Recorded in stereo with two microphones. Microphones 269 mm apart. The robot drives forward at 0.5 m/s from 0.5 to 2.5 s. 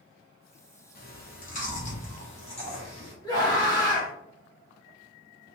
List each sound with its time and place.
0.9 s chewing: 35° left (ahead or behind), 1.0 m; by 3.1 s 20° left (ahead or behind), 1.5 m
3.2 s a scream: 15° left (ahead or behind), 1.1 m